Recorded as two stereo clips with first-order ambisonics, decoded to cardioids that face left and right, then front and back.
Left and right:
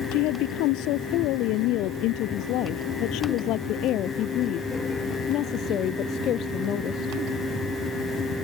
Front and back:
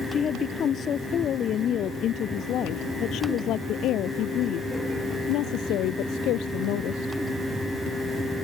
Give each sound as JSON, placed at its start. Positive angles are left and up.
{"t": 0.1, "sound": "a woman speaking", "azimuth_deg": 65}